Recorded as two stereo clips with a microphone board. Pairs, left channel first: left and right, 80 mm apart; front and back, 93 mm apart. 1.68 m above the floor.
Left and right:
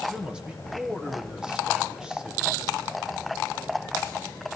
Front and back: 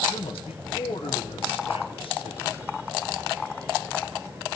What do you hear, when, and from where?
0.1 s a man speaking: 10° right, 1.6 m